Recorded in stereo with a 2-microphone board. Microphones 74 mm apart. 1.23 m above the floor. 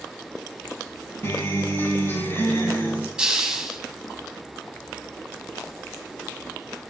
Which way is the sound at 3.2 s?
5° right (ahead or behind).